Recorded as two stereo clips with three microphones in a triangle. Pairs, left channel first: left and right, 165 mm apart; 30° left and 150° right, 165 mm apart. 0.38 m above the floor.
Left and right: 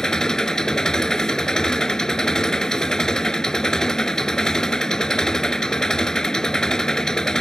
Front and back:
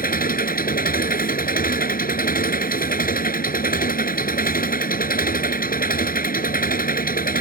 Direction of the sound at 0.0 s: 5° left.